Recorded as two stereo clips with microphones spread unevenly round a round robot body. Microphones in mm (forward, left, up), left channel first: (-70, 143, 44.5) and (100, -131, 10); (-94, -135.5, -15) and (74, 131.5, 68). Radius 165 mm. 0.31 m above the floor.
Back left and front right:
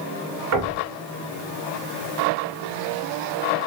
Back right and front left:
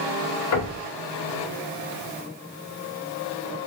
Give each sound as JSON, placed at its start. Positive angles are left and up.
{"t": 0.5, "sound": "knocking", "azimuth_deg": -95, "distance_m": 2.0}